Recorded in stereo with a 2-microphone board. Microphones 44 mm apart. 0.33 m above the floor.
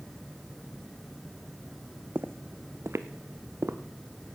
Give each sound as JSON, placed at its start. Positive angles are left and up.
{"t": 2.1, "sound": "footsteps", "side_deg": -50, "distance_m": 0.7}